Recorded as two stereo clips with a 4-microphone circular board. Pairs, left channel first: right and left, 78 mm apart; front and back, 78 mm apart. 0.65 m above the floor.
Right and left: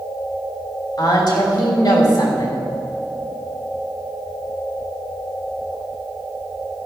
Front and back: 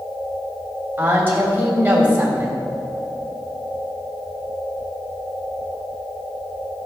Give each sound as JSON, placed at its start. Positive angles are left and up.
{"t": 1.0, "sound": "a woman speaking", "azimuth_deg": -115, "distance_m": 3.0}